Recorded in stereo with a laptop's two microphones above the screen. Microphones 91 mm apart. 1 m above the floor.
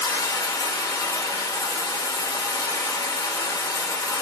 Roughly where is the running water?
Left.